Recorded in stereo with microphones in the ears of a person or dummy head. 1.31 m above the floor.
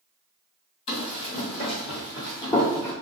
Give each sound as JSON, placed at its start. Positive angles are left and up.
{"t": 0.9, "sound": "running footsteps", "side_deg": 40, "distance_m": 2.0}